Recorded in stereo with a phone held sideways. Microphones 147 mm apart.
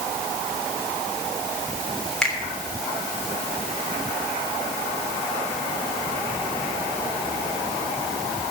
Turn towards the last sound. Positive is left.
turn(degrees=5)  # may be behind; listen again after turning